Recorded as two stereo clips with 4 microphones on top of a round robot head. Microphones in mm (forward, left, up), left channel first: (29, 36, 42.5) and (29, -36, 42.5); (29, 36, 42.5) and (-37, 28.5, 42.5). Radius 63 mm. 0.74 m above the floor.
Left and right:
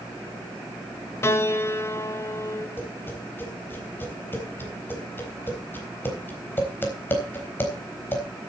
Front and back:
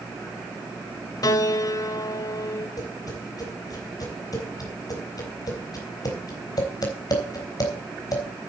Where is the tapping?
30° left, 4 m.